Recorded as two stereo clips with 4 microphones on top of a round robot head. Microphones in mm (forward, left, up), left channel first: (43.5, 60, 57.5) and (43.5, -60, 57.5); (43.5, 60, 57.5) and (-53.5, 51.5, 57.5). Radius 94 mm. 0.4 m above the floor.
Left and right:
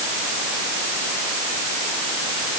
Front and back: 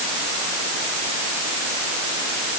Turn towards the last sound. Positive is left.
No sound to turn to.